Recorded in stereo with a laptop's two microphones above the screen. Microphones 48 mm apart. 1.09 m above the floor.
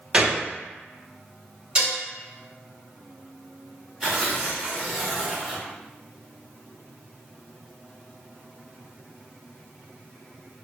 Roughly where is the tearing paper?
Centre.